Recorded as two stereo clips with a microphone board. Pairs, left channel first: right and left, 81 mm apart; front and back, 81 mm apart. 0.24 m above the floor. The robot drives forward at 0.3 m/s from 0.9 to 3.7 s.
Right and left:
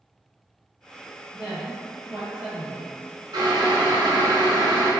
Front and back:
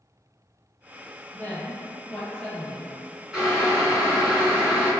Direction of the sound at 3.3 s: 95° left.